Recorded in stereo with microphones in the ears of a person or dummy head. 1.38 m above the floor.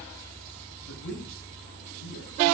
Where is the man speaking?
65° left (ahead or behind), 7 m.